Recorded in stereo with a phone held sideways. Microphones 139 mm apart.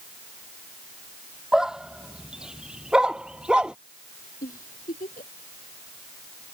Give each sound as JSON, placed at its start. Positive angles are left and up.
{"t": 1.5, "sound": "a dog barking", "side_deg": -5}
{"t": 4.4, "sound": "a giggle", "side_deg": 90}